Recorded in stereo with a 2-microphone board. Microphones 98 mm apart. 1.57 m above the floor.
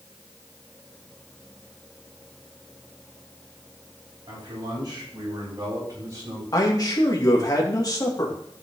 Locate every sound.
4.3 s a man speaking: 50° right (ahead or behind), 7 m; by 6.4 s 35° right (ahead or behind), 8 m
6.5 s a man speaking: 40° left (ahead or behind), 2.5 m